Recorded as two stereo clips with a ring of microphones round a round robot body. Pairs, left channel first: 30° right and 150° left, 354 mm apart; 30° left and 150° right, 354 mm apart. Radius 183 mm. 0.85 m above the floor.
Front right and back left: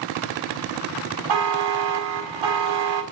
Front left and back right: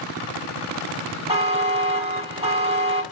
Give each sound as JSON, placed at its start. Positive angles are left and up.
{"t": 1.3, "sound": "a buzzer", "azimuth_deg": 135, "distance_m": 1.5}